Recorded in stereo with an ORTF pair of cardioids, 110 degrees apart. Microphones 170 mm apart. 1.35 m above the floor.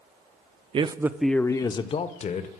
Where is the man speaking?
30° right, 0.5 m; by 2.6 s 45° left, 1.0 m.